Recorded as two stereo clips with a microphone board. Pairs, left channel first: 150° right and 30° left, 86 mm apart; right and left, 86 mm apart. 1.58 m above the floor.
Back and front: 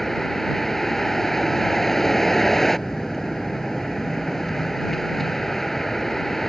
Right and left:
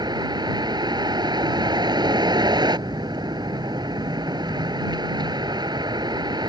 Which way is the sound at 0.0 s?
120° left.